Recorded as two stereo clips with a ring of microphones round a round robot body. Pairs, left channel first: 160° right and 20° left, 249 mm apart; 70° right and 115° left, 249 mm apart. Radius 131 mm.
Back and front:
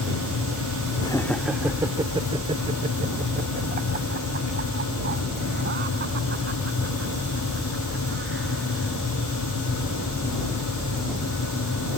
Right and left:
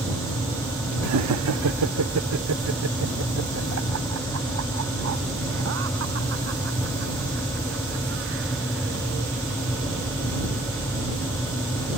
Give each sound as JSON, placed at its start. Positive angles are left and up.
{"t": 1.0, "sound": "laughter", "azimuth_deg": 130}